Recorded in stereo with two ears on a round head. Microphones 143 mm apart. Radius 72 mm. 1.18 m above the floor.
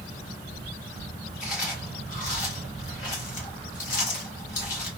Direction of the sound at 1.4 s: 50° left (ahead or behind).